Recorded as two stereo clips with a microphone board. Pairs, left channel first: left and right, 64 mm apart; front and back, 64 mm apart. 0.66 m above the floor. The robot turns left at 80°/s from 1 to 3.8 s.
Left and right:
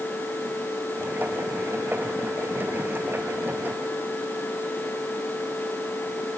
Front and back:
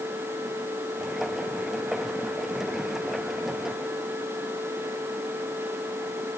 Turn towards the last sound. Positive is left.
No sound to turn to.